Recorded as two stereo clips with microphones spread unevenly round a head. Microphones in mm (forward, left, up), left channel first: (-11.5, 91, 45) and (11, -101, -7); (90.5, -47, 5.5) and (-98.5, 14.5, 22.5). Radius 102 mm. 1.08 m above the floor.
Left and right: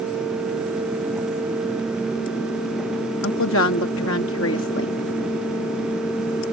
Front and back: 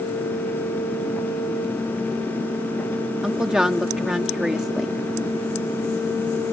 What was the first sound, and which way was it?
A woman speaking, 75° left.